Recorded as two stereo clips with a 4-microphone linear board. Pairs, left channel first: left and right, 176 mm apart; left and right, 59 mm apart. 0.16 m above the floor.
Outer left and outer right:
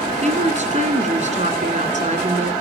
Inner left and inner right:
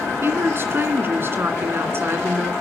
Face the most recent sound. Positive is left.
turn(degrees=-40)  # may be behind; listen again after turning